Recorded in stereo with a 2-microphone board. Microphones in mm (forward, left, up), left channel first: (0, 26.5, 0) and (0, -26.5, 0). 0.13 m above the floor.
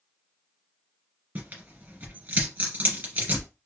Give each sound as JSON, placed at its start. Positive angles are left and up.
{"t": 1.4, "sound": "tearing paper", "side_deg": -30, "distance_m": 2.5}